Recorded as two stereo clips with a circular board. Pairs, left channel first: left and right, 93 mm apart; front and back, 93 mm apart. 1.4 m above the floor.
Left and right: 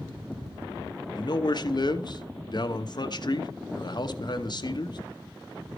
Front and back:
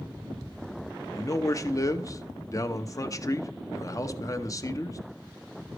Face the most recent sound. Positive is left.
turn(degrees=50)